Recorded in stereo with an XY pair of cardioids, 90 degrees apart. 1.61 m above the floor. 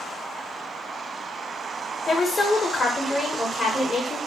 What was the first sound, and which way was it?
A woman speaking, 35° left.